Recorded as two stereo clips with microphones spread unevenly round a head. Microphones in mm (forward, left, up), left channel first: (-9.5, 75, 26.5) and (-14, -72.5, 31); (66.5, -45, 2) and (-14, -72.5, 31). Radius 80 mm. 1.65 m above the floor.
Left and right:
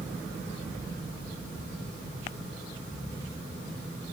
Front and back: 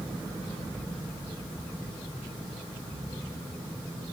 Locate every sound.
Only background noise.